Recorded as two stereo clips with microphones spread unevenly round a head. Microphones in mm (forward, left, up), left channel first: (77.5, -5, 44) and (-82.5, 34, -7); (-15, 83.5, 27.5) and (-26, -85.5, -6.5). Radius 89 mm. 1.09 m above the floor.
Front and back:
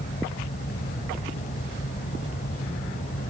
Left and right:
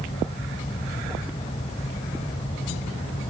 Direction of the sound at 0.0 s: 25° left.